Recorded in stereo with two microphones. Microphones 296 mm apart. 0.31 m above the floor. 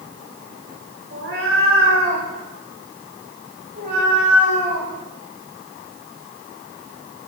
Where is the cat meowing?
45° right (ahead or behind), 6 m; by 7.3 s 25° right (ahead or behind), 10.5 m.